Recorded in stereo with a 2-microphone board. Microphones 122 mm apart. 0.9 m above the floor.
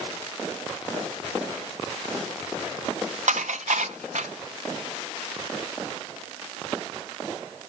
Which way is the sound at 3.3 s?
80° right.